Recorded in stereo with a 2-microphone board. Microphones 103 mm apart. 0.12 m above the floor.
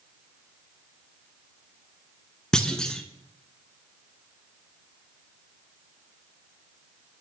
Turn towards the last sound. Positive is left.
turn(degrees=10)  # may be behind; listen again after turning